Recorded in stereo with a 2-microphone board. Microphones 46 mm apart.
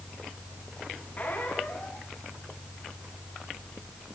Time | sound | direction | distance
1.2 | a squeak | 40° left (ahead or behind) | 7 m